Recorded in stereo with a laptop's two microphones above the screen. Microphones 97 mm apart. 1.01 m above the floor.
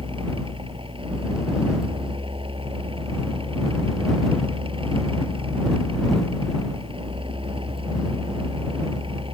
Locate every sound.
0.0 s a fan: 60° right (ahead or behind)